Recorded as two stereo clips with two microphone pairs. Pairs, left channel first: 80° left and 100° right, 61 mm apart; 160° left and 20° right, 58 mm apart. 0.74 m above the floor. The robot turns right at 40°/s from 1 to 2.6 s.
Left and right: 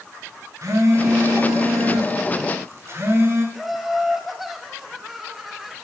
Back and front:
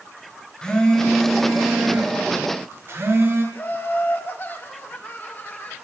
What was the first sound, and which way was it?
A phone buzzing, 120° right.